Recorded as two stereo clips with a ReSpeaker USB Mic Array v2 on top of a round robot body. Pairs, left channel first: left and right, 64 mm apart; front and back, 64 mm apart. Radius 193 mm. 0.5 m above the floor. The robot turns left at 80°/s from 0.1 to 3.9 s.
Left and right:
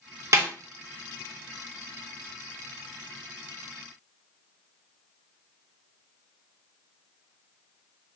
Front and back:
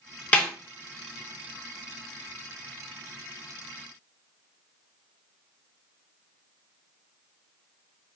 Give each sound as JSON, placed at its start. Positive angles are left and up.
{"t": 0.3, "sound": "a snare drum", "azimuth_deg": -60, "distance_m": 1.3}